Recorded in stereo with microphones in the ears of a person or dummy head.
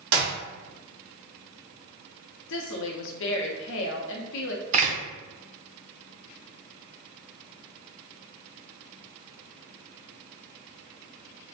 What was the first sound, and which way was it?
A clap, 70° right (ahead or behind).